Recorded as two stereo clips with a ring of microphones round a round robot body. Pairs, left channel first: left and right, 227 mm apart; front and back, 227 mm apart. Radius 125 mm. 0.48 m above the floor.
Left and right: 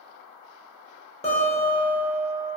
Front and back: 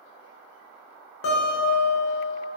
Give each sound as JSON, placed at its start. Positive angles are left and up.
{"t": 1.2, "sound": "a guitar", "azimuth_deg": 25, "distance_m": 0.8}